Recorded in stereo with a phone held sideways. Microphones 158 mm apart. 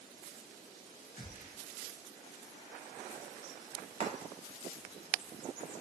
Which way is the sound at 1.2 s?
55° left (ahead or behind).